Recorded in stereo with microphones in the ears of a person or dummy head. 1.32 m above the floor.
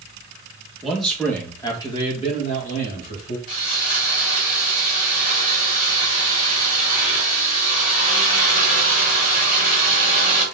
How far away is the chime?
No chime in this recording.